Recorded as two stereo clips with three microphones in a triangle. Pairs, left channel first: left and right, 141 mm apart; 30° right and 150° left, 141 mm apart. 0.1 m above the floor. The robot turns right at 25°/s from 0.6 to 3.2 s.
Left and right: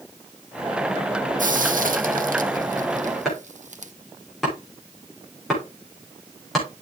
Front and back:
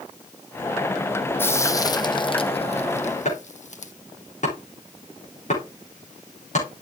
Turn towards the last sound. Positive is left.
turn(degrees=0)